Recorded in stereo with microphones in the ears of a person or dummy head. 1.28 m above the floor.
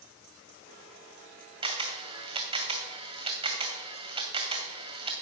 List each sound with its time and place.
1.6 s a camera shutter: 25° right (ahead or behind), 2.0 m